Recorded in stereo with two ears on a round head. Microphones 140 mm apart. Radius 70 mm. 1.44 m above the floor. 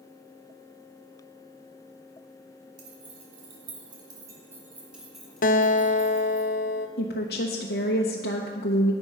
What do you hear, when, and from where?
2.8 s keys jangling: 50° right (ahead or behind), 3 m; by 6.4 s 20° left (ahead or behind), 3.5 m
5.4 s a guitar: 55° left (ahead or behind), 0.7 m
7.0 s a woman speaking: 70° left (ahead or behind), 1.0 m